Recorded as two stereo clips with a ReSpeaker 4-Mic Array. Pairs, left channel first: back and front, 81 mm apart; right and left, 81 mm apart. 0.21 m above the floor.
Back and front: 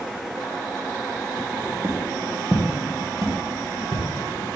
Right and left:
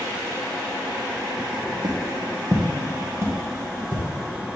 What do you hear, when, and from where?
1.8 s footsteps: 50° left, 2.5 m; by 4.0 s 30° left, 3 m